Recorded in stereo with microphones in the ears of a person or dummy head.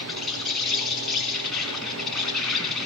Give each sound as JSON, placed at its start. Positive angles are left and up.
{"t": 0.0, "sound": "an insect", "side_deg": 0, "distance_m": 3.0}